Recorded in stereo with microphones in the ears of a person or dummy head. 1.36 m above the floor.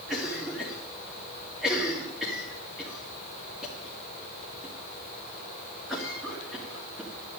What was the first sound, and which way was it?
A cough, 5° right (ahead or behind).